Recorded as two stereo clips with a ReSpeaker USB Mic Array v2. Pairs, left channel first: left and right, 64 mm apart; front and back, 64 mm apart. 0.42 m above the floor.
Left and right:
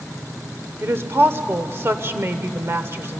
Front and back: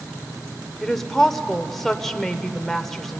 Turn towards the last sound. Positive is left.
turn(degrees=-80)